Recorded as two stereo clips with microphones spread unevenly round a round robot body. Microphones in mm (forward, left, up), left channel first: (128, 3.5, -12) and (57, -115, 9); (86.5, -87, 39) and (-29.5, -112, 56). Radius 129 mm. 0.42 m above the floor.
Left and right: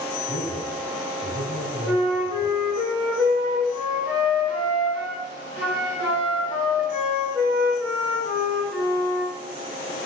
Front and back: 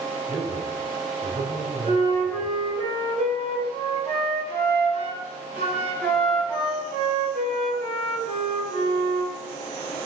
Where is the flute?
155° left, 3 m.